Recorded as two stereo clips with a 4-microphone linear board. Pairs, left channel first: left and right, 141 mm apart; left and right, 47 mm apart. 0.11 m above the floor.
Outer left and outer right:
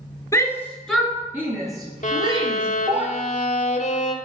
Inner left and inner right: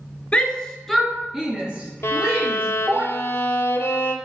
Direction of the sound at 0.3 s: 25° left (ahead or behind).